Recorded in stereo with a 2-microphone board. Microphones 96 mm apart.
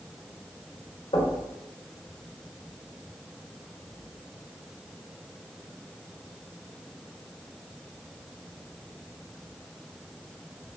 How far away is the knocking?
About 2 m.